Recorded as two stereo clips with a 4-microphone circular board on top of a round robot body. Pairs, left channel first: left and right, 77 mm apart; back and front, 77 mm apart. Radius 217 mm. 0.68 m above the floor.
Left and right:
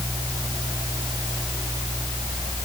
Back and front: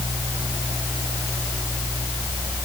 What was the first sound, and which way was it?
Only background noise.